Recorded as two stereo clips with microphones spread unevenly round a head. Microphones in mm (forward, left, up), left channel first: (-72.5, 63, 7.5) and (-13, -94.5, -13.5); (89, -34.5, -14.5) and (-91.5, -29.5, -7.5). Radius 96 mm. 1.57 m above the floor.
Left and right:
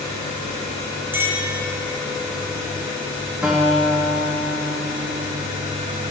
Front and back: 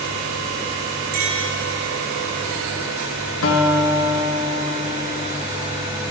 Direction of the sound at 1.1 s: 150° right.